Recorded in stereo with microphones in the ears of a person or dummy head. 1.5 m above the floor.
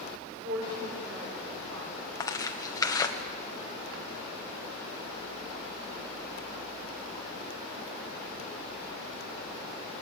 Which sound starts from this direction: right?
A woman speaking, at 0.3 s.